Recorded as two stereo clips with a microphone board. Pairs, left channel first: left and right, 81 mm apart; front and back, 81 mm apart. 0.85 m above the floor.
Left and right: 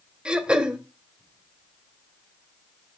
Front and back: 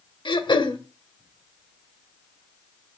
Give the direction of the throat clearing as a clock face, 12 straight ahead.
12 o'clock.